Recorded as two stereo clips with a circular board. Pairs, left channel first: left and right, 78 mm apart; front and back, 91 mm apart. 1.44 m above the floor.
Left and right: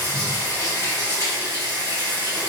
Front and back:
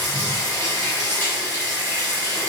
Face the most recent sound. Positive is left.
turn(degrees=-50)